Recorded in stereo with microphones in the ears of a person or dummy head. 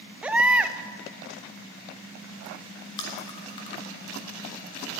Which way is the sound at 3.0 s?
20° left (ahead or behind).